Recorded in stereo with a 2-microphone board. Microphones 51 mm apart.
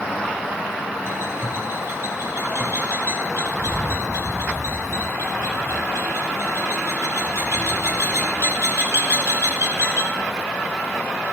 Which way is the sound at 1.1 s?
60° right (ahead or behind).